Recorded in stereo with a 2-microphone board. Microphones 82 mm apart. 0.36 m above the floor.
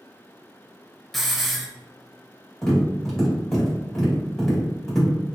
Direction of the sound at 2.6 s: 5° left (ahead or behind).